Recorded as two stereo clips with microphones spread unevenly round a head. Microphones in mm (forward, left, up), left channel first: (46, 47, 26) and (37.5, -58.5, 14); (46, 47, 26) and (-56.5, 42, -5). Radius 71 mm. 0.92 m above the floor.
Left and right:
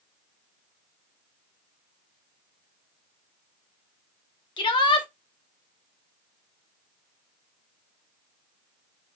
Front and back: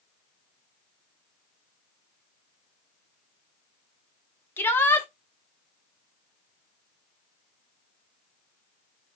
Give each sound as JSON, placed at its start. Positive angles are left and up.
{"t": 4.6, "sound": "a shout", "azimuth_deg": 80, "distance_m": 1.0}